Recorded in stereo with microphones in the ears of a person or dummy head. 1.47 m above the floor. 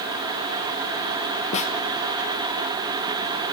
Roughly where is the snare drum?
Left.